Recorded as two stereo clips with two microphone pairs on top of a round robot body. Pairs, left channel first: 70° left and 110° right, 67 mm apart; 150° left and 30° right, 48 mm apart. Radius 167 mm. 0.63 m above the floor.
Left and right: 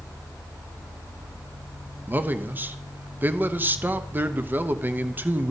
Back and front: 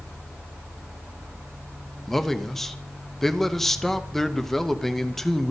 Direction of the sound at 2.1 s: 150° right.